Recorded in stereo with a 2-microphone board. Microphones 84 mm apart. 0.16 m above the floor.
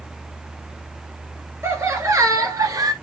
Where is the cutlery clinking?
No cutlery clinking in this recording.